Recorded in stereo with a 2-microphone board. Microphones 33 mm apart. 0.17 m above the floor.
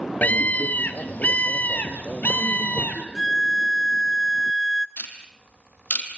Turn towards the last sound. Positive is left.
turn(degrees=60)  # may be behind; listen again after turning